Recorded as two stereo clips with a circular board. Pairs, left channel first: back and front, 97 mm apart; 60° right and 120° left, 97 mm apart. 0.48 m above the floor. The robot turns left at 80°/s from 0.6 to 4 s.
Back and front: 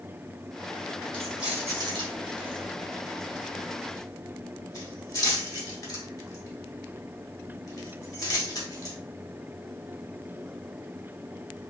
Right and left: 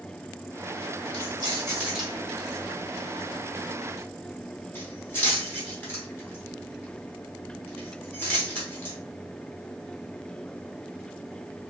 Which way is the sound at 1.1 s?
105° left.